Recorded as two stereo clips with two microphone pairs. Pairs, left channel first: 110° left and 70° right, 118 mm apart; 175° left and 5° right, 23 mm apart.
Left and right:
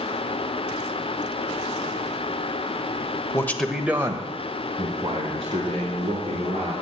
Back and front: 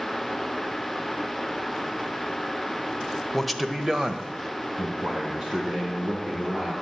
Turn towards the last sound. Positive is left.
turn(degrees=-30)